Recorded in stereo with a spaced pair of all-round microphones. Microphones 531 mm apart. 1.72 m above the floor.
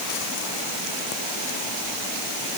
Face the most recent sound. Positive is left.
No sound to turn to.